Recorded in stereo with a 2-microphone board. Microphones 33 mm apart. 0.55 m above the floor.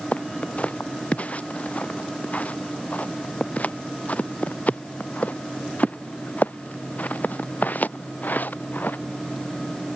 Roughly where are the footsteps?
Left.